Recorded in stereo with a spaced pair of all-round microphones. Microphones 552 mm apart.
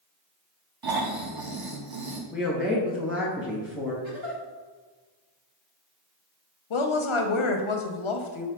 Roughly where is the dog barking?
I don't hear a dog barking.